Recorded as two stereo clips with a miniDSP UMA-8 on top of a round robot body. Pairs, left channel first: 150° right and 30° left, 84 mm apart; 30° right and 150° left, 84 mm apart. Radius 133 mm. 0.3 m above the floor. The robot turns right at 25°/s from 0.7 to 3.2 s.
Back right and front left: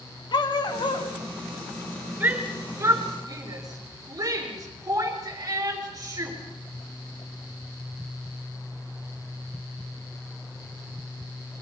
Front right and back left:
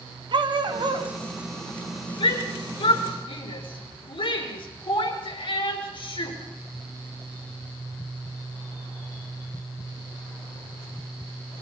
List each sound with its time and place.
0.3 s a dog barking: 175° left, 1.9 m; by 1.1 s 170° right, 1.9 m
2.2 s a shout: 40° right, 5.5 m; by 6.4 s 15° right, 5.5 m